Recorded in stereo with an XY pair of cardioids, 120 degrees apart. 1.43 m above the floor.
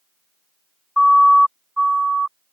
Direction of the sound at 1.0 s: 10° left.